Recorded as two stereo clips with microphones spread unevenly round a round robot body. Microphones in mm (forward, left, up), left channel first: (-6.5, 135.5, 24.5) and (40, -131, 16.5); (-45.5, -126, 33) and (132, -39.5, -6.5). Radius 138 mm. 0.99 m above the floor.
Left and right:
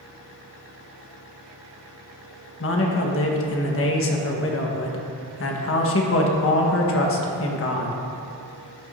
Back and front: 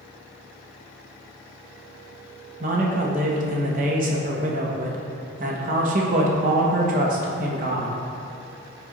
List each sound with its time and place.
2.6 s a man speaking: 65° left, 1.4 m